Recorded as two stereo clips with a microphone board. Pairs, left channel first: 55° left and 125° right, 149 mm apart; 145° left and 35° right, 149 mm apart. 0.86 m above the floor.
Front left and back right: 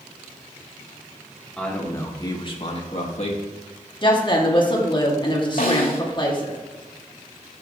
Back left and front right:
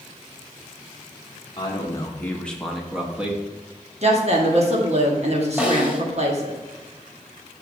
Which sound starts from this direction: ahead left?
A snare drum, at 5.6 s.